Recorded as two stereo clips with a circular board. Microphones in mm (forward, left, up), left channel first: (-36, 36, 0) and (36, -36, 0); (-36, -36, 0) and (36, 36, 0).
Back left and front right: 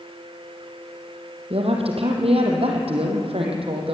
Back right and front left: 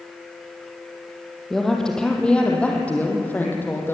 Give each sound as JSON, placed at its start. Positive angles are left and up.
{"t": 1.5, "sound": "a woman speaking", "azimuth_deg": -50, "distance_m": 4.5}